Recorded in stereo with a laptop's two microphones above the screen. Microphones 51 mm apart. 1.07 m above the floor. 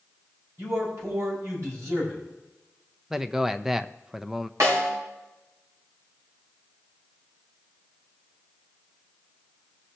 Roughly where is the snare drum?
Right.